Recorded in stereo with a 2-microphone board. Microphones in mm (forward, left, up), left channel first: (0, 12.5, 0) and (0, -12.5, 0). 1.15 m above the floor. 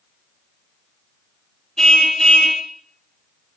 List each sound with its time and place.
1.8 s a car horn: 20° left (ahead or behind), 2 m